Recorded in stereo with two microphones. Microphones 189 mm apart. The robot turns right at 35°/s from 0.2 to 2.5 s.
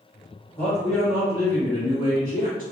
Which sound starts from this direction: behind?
A man speaking, at 0.6 s.